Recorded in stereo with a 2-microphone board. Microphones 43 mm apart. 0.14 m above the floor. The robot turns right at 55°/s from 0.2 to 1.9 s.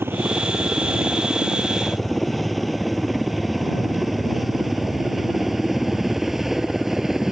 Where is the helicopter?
65° right (ahead or behind); by 7.3 s 5° right (ahead or behind).